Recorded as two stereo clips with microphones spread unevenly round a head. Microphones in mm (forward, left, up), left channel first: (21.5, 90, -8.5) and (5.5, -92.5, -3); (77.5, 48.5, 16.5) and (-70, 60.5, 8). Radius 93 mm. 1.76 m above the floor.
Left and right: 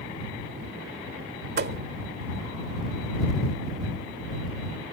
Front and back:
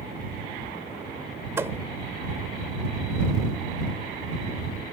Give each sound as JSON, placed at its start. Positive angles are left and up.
{"t": 1.6, "sound": "a thud", "azimuth_deg": -110}